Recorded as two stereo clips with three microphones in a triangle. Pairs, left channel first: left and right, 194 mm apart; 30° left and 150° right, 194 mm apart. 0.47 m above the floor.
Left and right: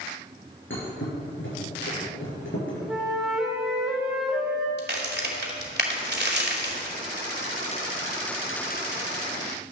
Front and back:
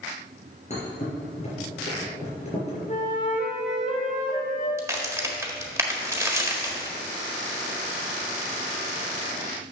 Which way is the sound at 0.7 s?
85° left.